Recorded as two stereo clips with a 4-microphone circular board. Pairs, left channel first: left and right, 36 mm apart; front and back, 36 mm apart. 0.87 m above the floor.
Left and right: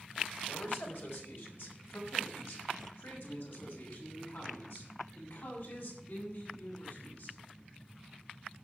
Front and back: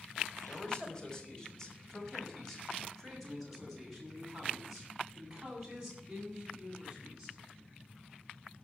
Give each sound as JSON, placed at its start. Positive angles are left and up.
{"t": 0.5, "sound": "a man speaking", "azimuth_deg": 65, "distance_m": 4.5}